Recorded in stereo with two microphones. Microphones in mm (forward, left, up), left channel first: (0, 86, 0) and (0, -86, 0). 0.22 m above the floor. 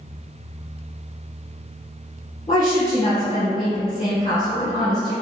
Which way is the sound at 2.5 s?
30° left (ahead or behind).